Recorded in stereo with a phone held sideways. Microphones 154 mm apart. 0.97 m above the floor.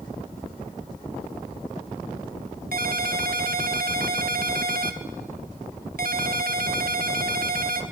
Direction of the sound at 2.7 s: 70° right (ahead or behind).